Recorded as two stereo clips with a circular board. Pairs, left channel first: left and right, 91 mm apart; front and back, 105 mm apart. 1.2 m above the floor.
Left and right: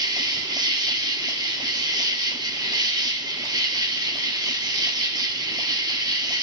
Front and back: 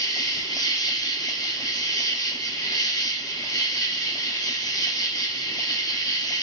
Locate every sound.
0.0 s an insect: 50° right, 0.9 m